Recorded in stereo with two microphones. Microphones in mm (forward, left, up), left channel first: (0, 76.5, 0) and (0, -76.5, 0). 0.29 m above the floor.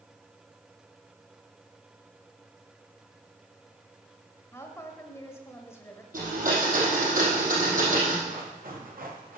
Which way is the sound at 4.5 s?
20° left (ahead or behind).